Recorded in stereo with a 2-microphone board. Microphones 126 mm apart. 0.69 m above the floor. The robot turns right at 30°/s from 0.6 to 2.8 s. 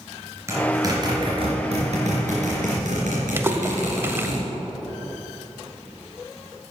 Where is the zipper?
25° right (ahead or behind), 3 m; by 4.4 s 85° right, 3 m.